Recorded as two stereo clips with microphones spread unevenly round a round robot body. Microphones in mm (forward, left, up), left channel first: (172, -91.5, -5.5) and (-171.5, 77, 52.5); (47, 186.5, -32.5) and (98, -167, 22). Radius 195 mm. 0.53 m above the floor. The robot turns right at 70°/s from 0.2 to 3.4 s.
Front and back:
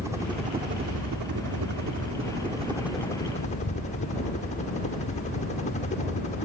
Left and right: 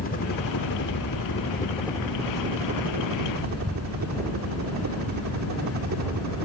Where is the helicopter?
65° left; by 6.5 s 75° right.